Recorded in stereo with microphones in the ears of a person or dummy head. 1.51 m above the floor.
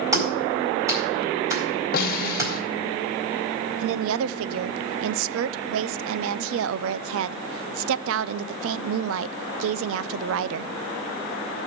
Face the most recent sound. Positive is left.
turn(degrees=-80)